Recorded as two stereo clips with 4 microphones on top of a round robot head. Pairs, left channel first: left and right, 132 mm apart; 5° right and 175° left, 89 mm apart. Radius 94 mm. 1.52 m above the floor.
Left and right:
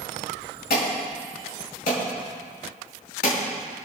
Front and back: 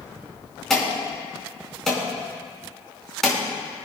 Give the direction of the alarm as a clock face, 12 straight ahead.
9 o'clock.